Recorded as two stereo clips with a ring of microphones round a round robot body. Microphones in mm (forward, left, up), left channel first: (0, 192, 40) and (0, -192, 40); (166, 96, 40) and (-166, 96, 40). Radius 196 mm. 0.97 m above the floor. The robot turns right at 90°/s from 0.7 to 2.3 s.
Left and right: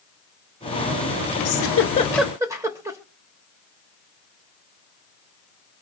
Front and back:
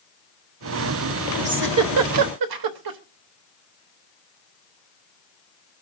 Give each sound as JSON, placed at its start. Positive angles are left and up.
{"t": 1.4, "sound": "a giggle", "azimuth_deg": 115, "distance_m": 1.0}